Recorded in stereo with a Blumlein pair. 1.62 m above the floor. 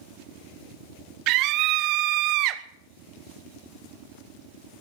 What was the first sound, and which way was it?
A scream, 40° right.